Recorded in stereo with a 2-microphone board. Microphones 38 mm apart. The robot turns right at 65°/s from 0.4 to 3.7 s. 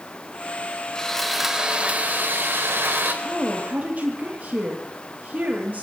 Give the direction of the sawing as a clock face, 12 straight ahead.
7 o'clock.